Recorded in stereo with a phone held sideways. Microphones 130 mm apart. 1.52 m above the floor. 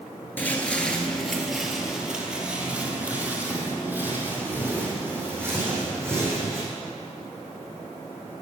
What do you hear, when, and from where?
0.4 s footsteps: 15° left (ahead or behind), 1.6 m; by 6.6 s 20° right (ahead or behind), 5.5 m